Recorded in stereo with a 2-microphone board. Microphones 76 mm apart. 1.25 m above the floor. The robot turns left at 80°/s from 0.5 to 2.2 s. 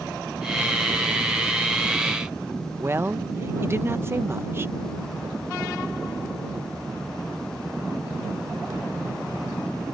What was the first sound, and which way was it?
A woman speaking, 30° right (ahead or behind).